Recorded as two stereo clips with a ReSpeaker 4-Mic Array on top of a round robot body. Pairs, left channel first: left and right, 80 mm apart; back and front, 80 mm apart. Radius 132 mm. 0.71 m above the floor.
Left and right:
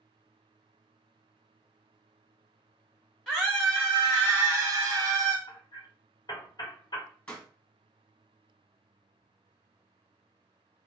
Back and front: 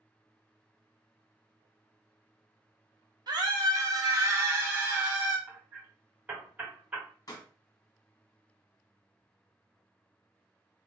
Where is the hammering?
70° left, 1.2 m.